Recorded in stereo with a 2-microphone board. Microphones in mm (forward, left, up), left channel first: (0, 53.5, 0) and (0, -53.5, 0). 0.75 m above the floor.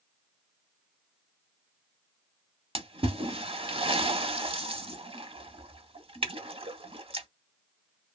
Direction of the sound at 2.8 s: 60° right (ahead or behind).